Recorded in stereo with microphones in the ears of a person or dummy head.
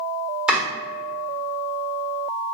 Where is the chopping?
5° right (ahead or behind), 1.2 m.